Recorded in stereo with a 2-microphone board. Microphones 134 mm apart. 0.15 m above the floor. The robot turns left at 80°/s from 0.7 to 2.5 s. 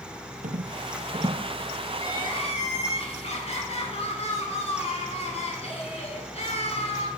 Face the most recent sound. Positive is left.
turn(degrees=105)